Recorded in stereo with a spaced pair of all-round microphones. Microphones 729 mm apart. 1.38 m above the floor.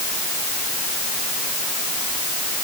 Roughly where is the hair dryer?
I don't hear a hair dryer.